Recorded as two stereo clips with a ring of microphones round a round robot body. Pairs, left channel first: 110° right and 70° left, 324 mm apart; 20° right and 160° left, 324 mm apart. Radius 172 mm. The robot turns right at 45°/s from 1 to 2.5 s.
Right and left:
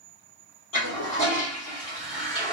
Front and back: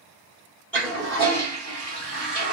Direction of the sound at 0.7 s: 105° right.